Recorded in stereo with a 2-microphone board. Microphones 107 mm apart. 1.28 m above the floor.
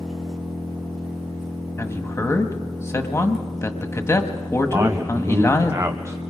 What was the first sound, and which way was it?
An engine running, 5° right (ahead or behind).